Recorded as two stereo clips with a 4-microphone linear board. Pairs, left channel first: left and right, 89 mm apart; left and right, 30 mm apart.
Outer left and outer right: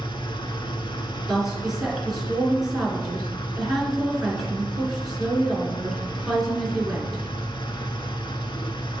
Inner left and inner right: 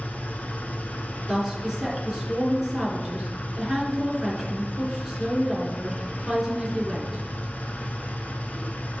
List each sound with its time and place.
0.0 s an engine running: 65° left (ahead or behind), 0.8 m
1.3 s a woman speaking: 5° right (ahead or behind), 3 m